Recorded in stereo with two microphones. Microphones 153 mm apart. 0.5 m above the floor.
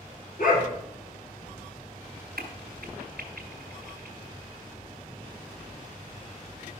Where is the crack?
80° right, 1.4 m.